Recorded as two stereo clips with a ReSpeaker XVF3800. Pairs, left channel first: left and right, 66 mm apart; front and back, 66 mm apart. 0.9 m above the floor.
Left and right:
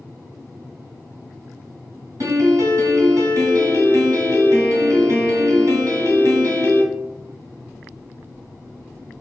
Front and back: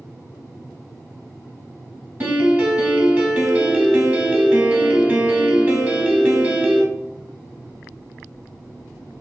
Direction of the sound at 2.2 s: 115° right.